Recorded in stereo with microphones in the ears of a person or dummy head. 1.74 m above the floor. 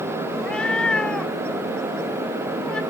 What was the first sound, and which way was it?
A cat meowing, 5° left (ahead or behind).